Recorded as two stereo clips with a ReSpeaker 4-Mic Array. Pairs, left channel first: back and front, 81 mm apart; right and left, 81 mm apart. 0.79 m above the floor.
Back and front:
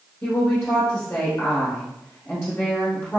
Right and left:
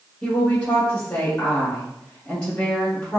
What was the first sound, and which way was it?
A woman speaking, 155° right.